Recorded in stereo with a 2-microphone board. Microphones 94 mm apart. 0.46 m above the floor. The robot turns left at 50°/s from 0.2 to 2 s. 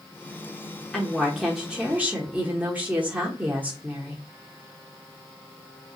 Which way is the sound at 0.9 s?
10° left (ahead or behind).